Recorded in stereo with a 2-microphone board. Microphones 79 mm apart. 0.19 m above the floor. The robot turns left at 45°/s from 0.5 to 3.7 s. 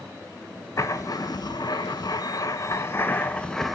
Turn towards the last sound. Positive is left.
turn(degrees=5)